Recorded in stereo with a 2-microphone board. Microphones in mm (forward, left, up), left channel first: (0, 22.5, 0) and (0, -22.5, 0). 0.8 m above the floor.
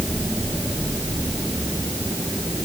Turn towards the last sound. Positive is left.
No sound to turn to.